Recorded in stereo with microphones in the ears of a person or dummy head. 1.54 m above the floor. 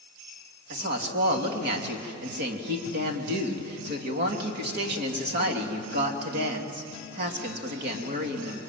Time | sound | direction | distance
0.7 | a woman speaking | 55° right (ahead or behind) | 3 m